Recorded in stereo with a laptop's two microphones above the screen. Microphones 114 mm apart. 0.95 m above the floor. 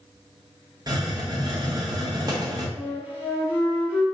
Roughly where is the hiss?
Right.